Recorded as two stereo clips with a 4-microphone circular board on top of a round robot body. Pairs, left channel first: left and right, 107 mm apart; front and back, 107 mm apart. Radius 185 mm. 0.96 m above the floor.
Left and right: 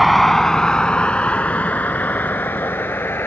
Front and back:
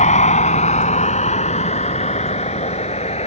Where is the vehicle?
Straight ahead; by 3.3 s 20° left.